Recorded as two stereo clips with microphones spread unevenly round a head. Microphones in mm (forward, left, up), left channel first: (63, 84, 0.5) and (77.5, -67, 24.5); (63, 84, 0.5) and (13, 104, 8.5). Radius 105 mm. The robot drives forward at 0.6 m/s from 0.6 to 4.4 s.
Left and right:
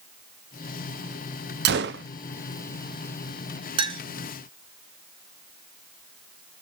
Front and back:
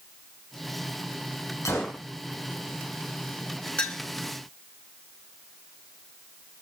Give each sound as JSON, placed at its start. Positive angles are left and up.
{"t": 1.6, "sound": "a gunshot", "azimuth_deg": -95, "distance_m": 0.5}
{"t": 3.8, "sound": "a clink", "azimuth_deg": -95, "distance_m": 0.9}